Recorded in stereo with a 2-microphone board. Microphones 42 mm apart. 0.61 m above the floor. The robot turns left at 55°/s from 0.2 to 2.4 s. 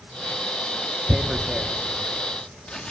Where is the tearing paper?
10° right (ahead or behind), 1.2 m; by 2.9 s 25° left (ahead or behind), 1.2 m.